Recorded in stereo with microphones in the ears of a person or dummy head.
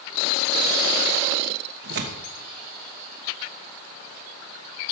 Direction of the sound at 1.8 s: 60° right (ahead or behind).